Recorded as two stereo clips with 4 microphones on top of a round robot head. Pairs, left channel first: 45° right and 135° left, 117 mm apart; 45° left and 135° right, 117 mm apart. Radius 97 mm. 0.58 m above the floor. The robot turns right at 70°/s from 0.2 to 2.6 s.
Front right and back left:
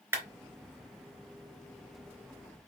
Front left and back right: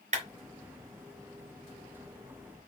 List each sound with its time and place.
0.1 s a clap: 160° right, 3.5 m; by 0.2 s 155° right, 3.5 m